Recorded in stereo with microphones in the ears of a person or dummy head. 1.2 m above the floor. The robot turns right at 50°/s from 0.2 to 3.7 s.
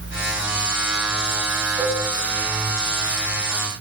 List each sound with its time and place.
1.8 s a cowbell: 20° right (ahead or behind), 6.5 m; by 2.0 s 5° right (ahead or behind), 6.5 m